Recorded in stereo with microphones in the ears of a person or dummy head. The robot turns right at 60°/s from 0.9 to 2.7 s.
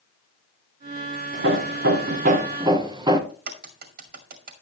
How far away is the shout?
I don't hear a shout.